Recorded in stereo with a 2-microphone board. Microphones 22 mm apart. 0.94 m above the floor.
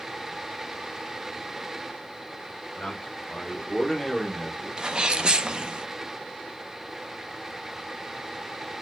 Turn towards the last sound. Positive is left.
turn(degrees=-40)  # may be behind; listen again after turning